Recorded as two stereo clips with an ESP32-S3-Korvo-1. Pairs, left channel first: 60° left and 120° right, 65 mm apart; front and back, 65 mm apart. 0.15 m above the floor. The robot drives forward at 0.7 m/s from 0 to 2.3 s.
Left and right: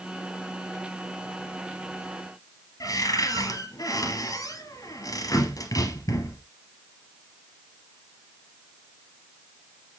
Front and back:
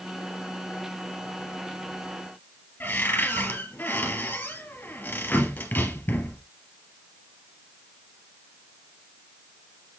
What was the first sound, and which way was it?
A cupboard door, 60° left.